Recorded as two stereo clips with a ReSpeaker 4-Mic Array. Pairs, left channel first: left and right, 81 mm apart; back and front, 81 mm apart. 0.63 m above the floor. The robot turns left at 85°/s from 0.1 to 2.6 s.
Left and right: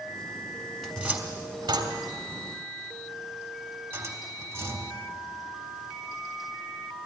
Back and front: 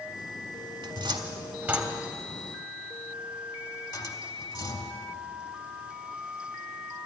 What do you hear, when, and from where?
0.8 s a cupboard door: straight ahead, 1.5 m; by 5.0 s 150° right, 1.5 m